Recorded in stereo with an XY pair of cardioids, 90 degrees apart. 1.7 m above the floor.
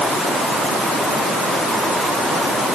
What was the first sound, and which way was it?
Only background noise.